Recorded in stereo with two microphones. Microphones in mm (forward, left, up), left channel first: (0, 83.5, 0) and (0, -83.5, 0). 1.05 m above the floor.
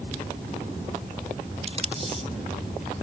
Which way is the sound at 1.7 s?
40° right (ahead or behind).